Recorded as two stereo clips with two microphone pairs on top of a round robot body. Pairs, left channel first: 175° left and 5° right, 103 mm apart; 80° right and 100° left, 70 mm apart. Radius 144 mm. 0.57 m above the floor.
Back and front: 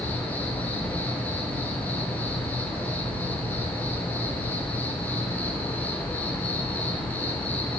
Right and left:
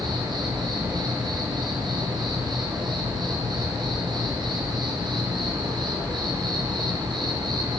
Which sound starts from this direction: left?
An insect, at 0.0 s.